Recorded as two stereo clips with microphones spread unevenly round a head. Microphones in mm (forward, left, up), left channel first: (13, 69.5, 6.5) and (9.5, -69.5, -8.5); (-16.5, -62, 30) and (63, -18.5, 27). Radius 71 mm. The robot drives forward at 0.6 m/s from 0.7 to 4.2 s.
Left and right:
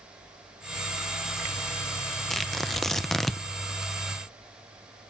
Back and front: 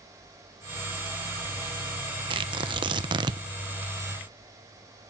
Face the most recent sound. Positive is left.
turn(degrees=30)